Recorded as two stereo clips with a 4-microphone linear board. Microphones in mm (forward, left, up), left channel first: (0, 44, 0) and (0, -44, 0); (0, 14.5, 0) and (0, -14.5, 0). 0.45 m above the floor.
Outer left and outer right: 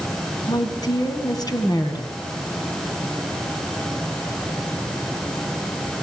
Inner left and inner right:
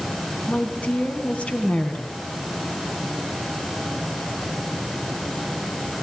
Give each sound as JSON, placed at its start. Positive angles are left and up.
{"t": 0.5, "sound": "a woman speaking", "side_deg": 45, "distance_m": 3.5}